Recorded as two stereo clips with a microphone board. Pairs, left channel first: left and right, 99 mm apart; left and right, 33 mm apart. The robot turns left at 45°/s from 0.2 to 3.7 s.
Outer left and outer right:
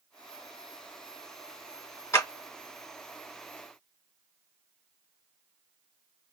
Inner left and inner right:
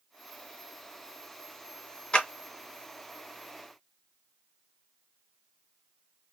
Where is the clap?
30° left (ahead or behind), 1.7 m.